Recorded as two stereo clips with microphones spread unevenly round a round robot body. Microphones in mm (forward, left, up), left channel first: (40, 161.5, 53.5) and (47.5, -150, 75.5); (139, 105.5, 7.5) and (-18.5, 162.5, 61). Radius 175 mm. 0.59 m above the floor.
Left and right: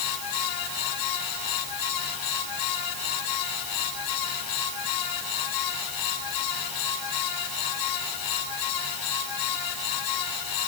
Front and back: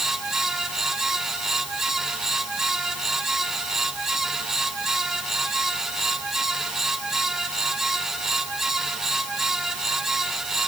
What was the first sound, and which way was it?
Only background noise.